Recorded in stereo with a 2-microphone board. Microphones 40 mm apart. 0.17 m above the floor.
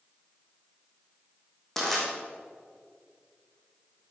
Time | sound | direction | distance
1.8 | crushing | 10° left (ahead or behind) | 4.5 m